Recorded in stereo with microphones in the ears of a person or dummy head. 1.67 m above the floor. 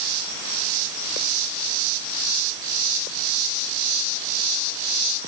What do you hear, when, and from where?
Only background noise.